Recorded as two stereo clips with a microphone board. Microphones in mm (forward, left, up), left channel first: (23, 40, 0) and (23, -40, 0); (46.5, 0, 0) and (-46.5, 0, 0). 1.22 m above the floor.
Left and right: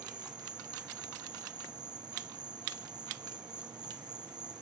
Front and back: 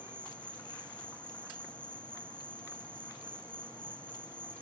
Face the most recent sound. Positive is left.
turn(degrees=-75)